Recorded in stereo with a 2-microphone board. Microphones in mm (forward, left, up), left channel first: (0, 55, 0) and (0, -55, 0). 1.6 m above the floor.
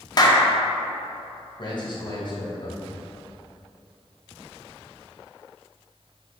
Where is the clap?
40° left (ahead or behind), 0.6 m.